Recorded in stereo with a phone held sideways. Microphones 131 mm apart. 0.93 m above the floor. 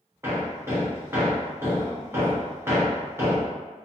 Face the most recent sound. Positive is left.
turn(degrees=-20)  # may be behind; listen again after turning